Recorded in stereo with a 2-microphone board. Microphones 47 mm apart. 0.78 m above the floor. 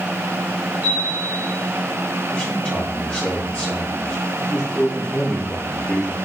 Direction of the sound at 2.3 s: 30° left (ahead or behind).